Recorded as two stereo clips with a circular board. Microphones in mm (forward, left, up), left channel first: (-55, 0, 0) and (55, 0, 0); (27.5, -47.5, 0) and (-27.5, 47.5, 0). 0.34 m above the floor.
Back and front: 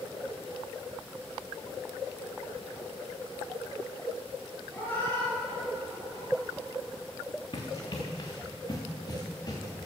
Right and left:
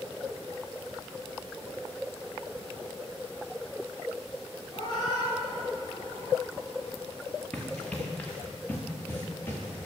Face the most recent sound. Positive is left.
turn(degrees=-130)